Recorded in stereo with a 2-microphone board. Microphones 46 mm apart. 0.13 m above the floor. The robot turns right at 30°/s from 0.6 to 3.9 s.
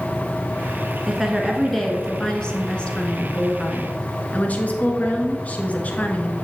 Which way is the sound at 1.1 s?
10° right.